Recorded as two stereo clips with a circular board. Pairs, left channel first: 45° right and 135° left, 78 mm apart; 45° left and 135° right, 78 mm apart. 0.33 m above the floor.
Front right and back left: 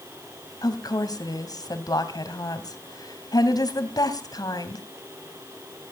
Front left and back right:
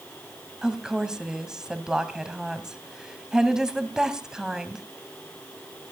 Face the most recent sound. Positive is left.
turn(degrees=-55)